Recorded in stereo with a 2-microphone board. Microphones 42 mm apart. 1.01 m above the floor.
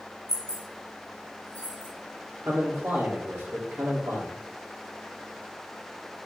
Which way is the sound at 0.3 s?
10° left (ahead or behind).